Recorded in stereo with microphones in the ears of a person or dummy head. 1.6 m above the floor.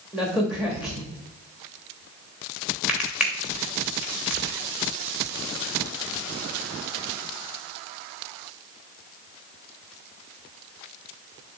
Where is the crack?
5° right (ahead or behind), 1.3 m.